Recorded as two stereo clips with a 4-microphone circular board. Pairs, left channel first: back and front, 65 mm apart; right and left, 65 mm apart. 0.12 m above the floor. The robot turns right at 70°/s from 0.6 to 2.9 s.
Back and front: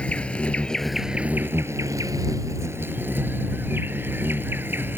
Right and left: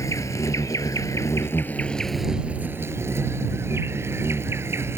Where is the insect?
110° right; by 5.0 s 50° left.